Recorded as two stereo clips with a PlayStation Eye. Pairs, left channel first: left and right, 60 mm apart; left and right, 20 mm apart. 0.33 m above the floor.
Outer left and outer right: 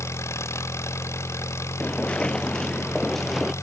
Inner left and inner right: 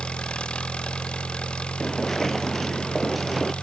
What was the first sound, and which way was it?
An engine running, 50° left (ahead or behind).